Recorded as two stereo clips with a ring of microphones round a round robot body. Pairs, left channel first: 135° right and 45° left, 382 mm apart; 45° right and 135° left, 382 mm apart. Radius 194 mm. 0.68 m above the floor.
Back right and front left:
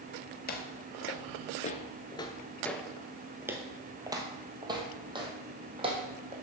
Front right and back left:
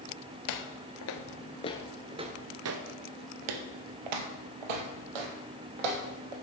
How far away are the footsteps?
About 1.0 m.